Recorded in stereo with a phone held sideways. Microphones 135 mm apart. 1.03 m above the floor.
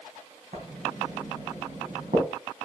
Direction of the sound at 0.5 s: 75° right (ahead or behind).